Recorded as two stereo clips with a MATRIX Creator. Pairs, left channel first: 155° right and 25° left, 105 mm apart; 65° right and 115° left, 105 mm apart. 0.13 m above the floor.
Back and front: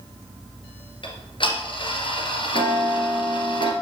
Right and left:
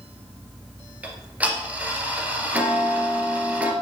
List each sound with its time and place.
1.0 s ticking: 175° right, 1.9 m